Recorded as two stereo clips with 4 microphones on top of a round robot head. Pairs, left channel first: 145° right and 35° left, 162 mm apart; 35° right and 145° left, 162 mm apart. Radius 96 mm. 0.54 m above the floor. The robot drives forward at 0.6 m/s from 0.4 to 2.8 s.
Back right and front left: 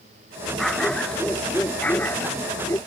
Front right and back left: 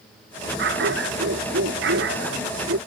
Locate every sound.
0.6 s a dog barking: 130° left; by 2.8 s 140° left